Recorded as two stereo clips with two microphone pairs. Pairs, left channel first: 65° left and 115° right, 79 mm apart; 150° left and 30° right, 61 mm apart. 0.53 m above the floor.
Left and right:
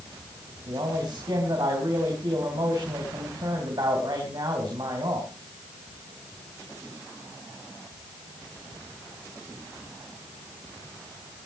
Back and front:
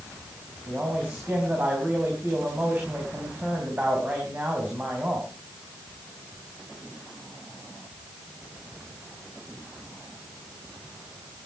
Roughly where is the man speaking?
Right.